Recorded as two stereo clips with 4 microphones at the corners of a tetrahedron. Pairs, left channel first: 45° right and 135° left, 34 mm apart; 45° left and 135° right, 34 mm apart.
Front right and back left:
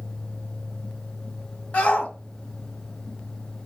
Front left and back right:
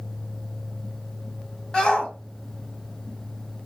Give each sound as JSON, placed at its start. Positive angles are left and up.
{"t": 1.7, "sound": "a shout", "azimuth_deg": -15, "distance_m": 2.0}